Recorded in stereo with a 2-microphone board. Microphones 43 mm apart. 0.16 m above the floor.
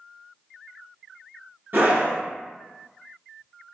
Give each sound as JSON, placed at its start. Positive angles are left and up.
{"t": 1.7, "sound": "a scream", "side_deg": -50, "distance_m": 2.0}